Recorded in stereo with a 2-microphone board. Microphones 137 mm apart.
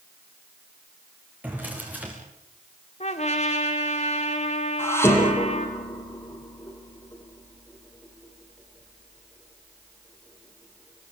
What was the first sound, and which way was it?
A drawer, 10° right (ahead or behind).